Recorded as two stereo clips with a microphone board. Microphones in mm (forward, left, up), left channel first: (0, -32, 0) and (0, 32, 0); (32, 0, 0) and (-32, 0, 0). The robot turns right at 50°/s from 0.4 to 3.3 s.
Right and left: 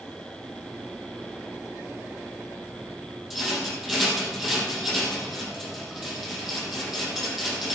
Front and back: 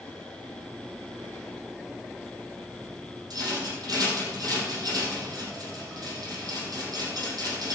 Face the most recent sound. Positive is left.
turn(degrees=175)